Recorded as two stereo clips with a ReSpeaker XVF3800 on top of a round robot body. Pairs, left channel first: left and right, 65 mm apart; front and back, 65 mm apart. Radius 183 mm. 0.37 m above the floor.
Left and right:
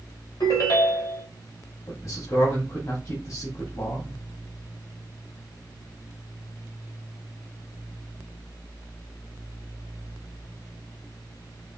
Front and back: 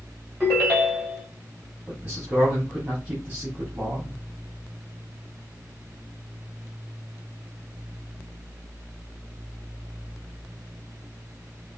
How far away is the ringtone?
About 2.5 m.